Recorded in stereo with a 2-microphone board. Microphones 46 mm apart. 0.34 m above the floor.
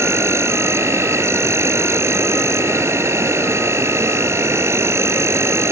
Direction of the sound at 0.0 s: 80° right.